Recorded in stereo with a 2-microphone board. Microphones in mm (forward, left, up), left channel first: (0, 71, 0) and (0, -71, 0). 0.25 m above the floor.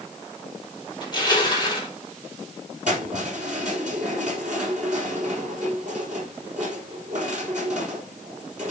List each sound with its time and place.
1.0 s crushing: 30° left (ahead or behind), 3 m
2.9 s keys jangling: 65° right (ahead or behind), 5 m